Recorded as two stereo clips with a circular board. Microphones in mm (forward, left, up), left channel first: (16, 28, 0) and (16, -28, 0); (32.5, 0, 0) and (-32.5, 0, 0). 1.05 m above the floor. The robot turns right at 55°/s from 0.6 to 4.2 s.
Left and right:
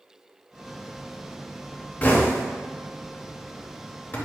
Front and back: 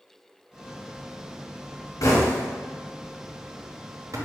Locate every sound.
2.0 s knocking: 25° left, 0.7 m; by 4.2 s 140° left, 0.7 m